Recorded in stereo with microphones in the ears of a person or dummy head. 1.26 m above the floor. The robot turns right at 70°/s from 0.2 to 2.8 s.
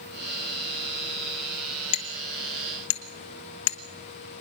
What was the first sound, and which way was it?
Hammering, 35° left (ahead or behind).